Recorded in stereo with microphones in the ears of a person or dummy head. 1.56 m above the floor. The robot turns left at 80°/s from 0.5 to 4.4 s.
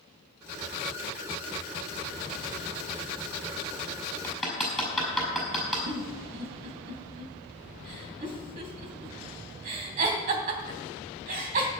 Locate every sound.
4.2 s hammering: 10° left (ahead or behind), 5.5 m; by 5.8 s centre (ahead or behind), 5.5 m
5.9 s a giggle: 45° right (ahead or behind), 2.5 m